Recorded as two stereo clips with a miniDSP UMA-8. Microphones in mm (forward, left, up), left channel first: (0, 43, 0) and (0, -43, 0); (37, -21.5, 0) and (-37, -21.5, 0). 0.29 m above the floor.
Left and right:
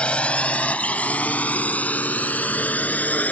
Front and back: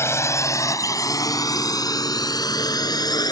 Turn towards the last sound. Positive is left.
turn(degrees=20)